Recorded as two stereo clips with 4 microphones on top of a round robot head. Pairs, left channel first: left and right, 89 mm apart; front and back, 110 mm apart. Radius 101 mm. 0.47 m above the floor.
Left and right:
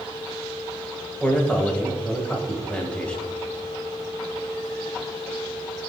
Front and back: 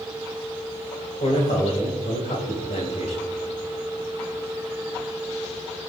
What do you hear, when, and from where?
1.2 s a man speaking: 15° left, 2.5 m